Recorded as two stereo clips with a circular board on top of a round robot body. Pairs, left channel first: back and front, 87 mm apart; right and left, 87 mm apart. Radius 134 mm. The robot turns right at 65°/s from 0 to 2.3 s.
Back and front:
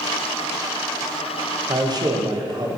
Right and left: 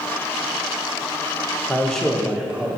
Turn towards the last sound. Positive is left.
turn(degrees=15)